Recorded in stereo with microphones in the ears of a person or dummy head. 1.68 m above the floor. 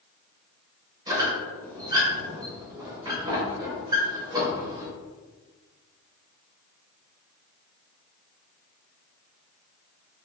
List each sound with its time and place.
1.1 s a squeak: 20° right (ahead or behind), 1.9 m